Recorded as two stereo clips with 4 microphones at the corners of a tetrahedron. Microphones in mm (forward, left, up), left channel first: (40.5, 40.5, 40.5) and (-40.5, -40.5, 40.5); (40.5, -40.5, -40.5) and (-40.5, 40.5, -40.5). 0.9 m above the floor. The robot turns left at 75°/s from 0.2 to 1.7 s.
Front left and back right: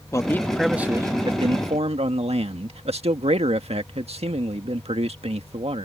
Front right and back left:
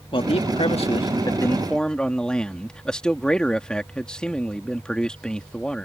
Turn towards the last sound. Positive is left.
turn(degrees=-125)